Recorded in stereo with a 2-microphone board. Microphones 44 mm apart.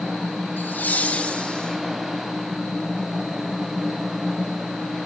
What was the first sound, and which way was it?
Laughter, 50° left (ahead or behind).